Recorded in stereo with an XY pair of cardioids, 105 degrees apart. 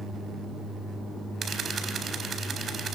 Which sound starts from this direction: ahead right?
A camera shutter, at 1.4 s.